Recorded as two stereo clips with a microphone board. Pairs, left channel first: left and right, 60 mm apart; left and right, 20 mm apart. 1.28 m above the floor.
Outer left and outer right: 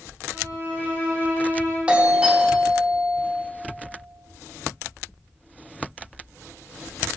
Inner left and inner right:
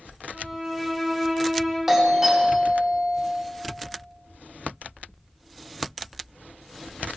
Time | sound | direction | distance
0.3 | a violin | 40° right (ahead or behind) | 4 m
1.9 | a doorbell | 15° right (ahead or behind) | 1.6 m